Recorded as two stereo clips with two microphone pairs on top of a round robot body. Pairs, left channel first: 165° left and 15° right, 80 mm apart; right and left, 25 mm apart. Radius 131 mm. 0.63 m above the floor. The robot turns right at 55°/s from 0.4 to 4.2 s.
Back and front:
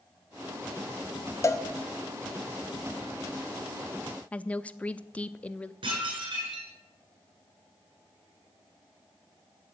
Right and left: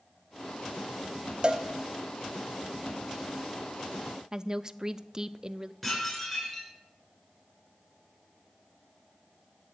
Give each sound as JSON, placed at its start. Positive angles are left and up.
{"t": 1.4, "sound": "a cowbell", "azimuth_deg": 125, "distance_m": 1.0}
{"t": 4.3, "sound": "a woman speaking", "azimuth_deg": 110, "distance_m": 0.5}
{"t": 5.8, "sound": "dishes clattering", "azimuth_deg": -5, "distance_m": 7.0}